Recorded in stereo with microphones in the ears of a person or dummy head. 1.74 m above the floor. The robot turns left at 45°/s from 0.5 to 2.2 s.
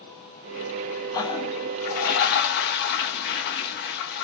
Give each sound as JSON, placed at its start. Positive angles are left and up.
{"t": 1.1, "sound": "a toilet flushing", "azimuth_deg": 155, "distance_m": 0.5}